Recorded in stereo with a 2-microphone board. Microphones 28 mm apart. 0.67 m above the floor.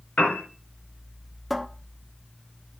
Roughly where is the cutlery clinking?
I don't hear cutlery clinking.